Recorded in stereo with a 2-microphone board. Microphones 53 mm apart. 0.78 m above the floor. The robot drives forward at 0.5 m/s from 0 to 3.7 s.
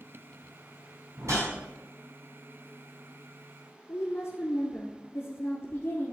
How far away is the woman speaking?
About 2.0 m.